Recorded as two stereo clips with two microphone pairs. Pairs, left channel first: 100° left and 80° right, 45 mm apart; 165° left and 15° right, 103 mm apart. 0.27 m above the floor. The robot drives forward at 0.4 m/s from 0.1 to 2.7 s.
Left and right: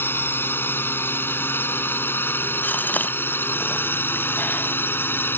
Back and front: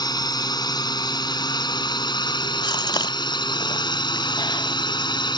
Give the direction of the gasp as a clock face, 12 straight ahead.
8 o'clock.